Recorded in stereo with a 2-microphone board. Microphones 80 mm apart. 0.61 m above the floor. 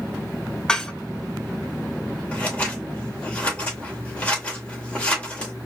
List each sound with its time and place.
0.7 s dishes clattering: 10° left (ahead or behind), 0.8 m
2.3 s scissors: 15° left (ahead or behind), 2.5 m